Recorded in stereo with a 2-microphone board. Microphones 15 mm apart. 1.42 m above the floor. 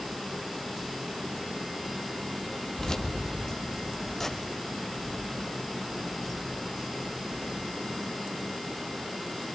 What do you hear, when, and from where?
2.8 s keys jangling: 45° left (ahead or behind), 1.8 m; by 7.7 s centre (ahead or behind), 6 m